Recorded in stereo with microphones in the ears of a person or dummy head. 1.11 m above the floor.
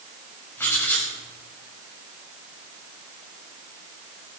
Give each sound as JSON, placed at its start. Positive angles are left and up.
{"t": 0.6, "sound": "writing", "side_deg": 10, "distance_m": 7.0}